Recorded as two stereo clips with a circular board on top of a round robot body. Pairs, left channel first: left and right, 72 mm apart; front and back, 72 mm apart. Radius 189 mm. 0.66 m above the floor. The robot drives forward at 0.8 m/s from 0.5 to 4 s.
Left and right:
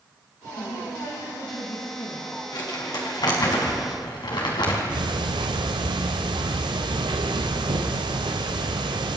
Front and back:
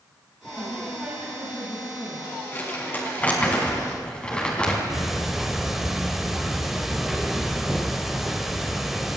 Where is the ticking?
95° right, 1.0 m.